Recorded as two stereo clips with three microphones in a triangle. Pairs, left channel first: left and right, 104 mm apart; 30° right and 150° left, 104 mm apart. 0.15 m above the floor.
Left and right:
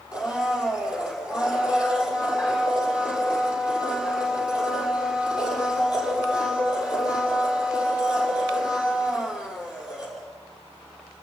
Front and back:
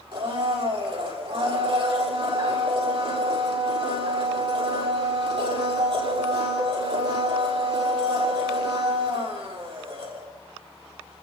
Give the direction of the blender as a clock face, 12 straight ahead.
6 o'clock.